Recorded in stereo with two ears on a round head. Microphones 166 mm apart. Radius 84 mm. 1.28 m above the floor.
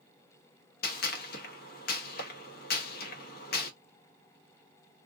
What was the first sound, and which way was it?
A gunshot, 50° left (ahead or behind).